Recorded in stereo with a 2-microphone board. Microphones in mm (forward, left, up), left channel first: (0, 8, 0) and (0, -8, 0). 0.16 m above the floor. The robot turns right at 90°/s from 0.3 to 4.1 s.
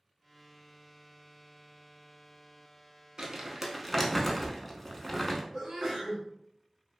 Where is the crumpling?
40° right (ahead or behind), 0.5 m; by 5.4 s 15° left (ahead or behind), 0.5 m.